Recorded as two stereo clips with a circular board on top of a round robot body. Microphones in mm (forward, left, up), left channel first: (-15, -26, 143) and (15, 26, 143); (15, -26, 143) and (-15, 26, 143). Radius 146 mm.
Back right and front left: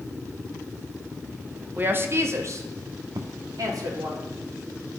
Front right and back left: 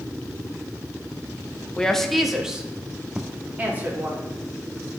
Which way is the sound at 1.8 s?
10° left.